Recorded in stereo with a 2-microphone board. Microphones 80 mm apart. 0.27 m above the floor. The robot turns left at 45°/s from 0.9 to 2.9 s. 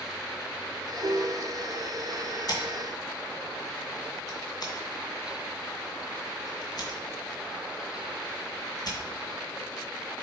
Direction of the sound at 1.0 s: 65° right (ahead or behind).